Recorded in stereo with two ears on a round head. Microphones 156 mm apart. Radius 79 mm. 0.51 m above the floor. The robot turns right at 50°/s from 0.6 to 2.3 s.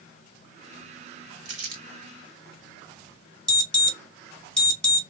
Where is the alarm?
5° left (ahead or behind), 1.6 m.